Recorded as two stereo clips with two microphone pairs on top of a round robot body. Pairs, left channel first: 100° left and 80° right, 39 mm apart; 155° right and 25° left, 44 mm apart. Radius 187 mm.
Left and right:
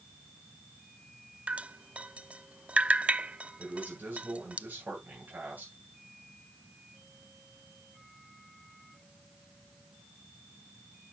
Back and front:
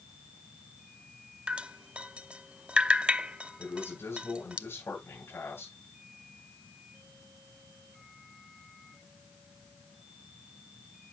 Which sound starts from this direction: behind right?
A man speaking, at 3.6 s.